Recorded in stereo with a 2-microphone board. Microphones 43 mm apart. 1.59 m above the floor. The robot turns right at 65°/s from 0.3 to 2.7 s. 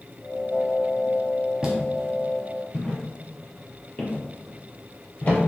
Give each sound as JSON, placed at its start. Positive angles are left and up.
{"t": 1.6, "sound": "footsteps", "side_deg": -15, "distance_m": 1.6}